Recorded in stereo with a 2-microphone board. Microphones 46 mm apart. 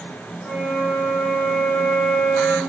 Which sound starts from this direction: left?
A flute, at 0.4 s.